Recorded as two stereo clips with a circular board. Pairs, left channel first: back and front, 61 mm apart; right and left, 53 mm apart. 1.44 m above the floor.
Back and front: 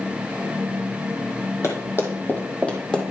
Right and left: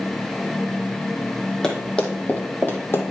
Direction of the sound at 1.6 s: 165° right.